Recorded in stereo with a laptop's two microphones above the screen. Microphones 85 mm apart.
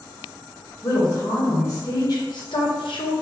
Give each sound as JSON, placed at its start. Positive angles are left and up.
{"t": 0.8, "sound": "a woman speaking", "side_deg": 40, "distance_m": 1.9}